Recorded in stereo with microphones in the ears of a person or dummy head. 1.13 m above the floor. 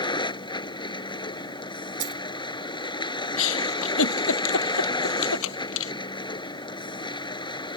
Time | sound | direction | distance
0.0 | a vehicle | 20° left (ahead or behind) | ?
2.0 | a dropped coin | 40° right (ahead or behind) | ?
3.4 | a giggle | 80° left | ?